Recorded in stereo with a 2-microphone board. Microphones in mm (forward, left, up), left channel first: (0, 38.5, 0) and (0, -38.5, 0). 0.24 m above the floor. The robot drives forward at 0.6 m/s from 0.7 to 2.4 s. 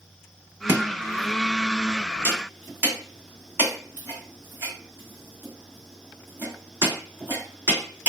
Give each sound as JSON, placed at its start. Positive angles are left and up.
{"t": 0.7, "sound": "chopping", "side_deg": -30, "distance_m": 1.7}